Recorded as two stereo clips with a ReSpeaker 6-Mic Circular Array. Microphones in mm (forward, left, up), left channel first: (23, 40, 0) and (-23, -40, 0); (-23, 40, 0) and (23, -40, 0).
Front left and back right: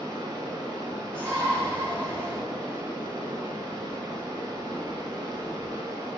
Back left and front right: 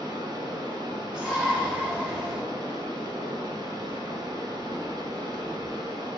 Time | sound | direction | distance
0.0 | running water | 75° right | 1.0 m
1.1 | a shout | 5° left | 1.5 m